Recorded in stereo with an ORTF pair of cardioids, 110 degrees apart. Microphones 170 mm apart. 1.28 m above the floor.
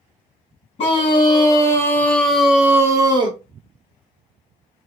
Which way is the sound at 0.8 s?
35° left.